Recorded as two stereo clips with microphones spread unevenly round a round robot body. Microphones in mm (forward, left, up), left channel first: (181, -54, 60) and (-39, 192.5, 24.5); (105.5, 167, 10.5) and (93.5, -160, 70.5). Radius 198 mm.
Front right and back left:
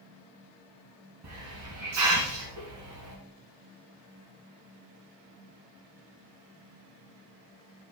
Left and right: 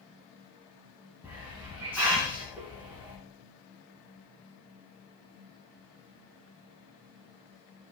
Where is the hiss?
Straight behind, 2.5 m.